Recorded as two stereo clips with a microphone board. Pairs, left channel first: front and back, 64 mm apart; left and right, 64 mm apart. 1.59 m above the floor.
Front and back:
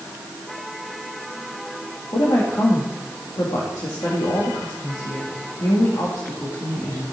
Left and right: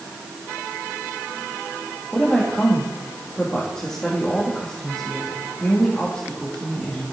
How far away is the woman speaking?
About 3 m.